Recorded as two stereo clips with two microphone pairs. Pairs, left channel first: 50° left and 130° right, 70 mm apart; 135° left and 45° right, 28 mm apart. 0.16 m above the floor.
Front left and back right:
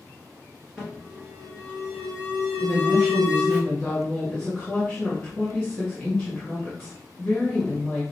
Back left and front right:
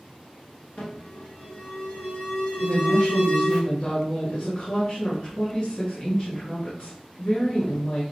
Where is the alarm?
155° left, 1.8 m.